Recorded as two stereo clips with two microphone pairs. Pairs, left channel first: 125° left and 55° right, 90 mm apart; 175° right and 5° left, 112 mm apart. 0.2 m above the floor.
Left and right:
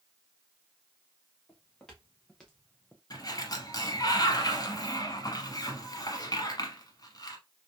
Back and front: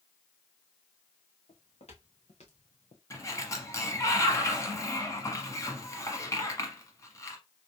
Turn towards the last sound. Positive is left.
turn(degrees=135)